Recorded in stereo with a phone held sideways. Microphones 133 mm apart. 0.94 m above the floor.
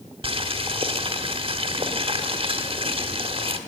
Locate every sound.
0.2 s boiling: 40° right (ahead or behind), 1.3 m